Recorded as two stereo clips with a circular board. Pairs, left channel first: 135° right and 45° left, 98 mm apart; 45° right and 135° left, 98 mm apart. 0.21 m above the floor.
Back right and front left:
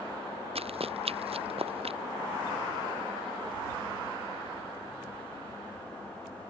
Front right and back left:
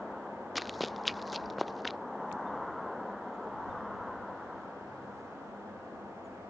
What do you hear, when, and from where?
0.6 s running footsteps: 45° left